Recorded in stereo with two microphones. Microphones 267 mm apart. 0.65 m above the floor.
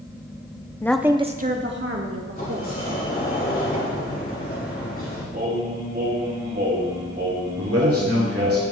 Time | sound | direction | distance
0.8 | a woman speaking | 10° left (ahead or behind) | 0.6 m
2.4 | a sliding door | 35° left (ahead or behind) | 3 m
5.3 | singing | 40° right (ahead or behind) | 3 m
7.6 | a man speaking | 60° right (ahead or behind) | 1.8 m